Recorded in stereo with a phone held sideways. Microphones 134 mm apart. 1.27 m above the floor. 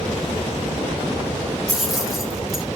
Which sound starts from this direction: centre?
Keys jangling, at 1.7 s.